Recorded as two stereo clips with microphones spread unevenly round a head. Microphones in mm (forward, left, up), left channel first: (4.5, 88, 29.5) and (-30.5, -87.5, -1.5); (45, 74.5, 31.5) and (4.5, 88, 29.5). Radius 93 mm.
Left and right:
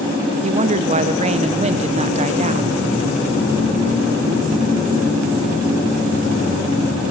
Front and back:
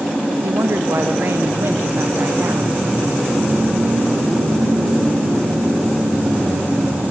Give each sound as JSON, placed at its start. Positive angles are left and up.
{"t": 0.4, "sound": "a woman speaking", "azimuth_deg": -150, "distance_m": 1.0}